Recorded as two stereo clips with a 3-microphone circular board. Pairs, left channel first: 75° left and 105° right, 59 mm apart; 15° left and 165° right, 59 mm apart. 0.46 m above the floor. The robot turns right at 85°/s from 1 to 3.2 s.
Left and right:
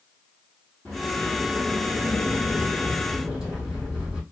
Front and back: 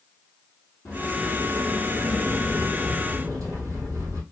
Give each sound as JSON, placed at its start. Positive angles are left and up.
{"t": 0.8, "sound": "a sliding door", "azimuth_deg": -15, "distance_m": 2.5}